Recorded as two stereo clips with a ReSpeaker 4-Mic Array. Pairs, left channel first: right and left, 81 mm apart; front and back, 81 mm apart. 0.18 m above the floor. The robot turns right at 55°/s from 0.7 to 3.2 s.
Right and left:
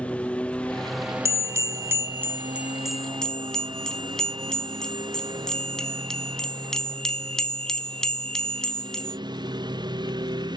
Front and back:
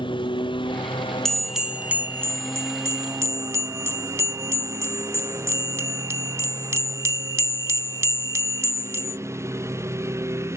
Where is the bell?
85° left; by 9.2 s 170° right.